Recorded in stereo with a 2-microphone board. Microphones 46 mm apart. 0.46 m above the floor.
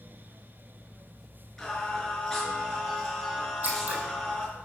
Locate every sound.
1.6 s singing: 5° left (ahead or behind), 5.5 m
3.6 s scissors: 40° right (ahead or behind), 4.5 m